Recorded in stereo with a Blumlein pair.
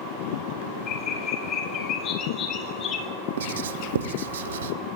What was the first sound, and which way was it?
A bird, 30° left.